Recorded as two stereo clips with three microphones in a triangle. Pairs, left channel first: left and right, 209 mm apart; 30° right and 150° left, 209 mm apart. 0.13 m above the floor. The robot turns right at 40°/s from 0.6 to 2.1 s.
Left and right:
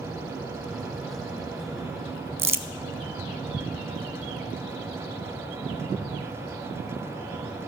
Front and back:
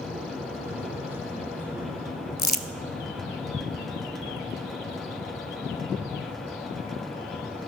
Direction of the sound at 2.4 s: 75° right.